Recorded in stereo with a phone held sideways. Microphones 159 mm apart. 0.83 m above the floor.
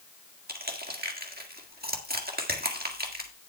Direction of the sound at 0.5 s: 70° right (ahead or behind).